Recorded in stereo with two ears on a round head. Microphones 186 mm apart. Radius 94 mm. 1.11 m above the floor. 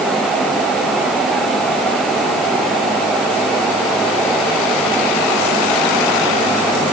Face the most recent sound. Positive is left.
No sound to turn to.